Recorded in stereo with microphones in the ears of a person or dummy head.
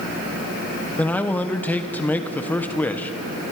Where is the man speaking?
10° left (ahead or behind), 1.3 m.